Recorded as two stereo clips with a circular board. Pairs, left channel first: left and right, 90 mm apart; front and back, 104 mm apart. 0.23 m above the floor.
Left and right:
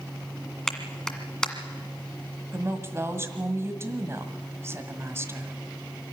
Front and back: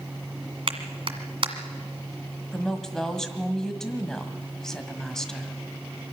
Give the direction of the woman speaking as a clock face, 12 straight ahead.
3 o'clock.